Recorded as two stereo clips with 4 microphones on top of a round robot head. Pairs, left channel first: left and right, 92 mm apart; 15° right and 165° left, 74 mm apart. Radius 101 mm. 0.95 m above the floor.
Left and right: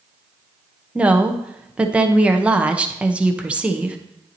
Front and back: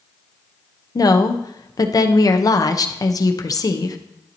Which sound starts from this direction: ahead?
A woman speaking, at 0.9 s.